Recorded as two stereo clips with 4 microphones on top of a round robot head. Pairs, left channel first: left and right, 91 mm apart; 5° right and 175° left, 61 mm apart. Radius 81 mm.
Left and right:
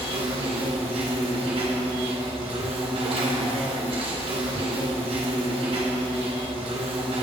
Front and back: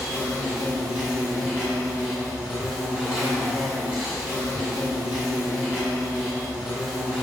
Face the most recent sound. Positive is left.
turn(degrees=-100)